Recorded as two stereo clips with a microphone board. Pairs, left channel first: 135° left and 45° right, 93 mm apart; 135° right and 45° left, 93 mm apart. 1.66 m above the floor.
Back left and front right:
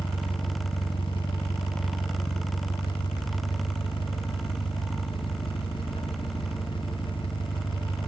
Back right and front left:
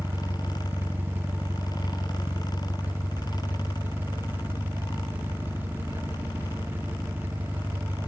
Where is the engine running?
110° left, 1.0 m.